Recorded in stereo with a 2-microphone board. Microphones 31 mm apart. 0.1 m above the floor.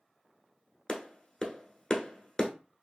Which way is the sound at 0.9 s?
20° left (ahead or behind).